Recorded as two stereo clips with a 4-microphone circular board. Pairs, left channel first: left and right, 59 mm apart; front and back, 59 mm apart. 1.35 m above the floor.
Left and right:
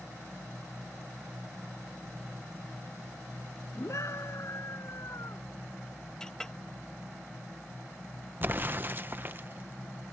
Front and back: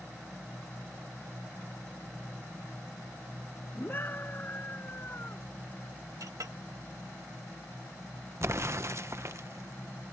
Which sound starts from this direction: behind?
A clink, at 6.2 s.